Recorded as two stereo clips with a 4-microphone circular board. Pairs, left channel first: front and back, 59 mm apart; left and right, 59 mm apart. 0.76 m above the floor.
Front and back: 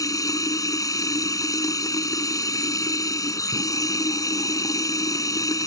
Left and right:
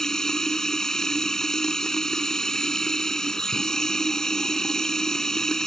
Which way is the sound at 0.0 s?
10° left.